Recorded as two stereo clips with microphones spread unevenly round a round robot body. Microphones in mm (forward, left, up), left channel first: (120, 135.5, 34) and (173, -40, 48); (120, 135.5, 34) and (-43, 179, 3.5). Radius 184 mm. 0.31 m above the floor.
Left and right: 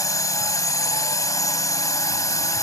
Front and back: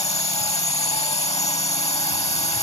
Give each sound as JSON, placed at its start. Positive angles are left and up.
{"t": 0.0, "sound": "a drone", "azimuth_deg": 40}